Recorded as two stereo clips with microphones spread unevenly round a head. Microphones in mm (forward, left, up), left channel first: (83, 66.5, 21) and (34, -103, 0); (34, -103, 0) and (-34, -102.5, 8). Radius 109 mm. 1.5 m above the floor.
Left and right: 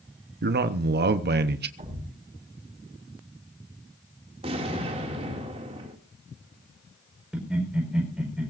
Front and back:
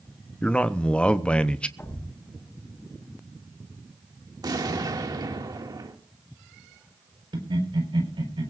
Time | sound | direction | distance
0.4 | a man speaking | 75° right | 0.9 m
1.8 | a thud | 55° right | 7 m
4.4 | an explosion | 175° right | 2 m
7.3 | laughter | 165° left | 4.5 m